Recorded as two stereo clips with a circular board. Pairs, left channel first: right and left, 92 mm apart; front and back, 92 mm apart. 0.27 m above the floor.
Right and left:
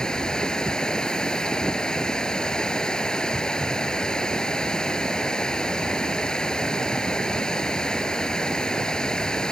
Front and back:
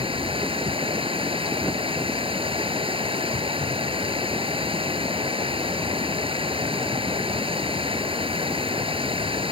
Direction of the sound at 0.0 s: 170° right.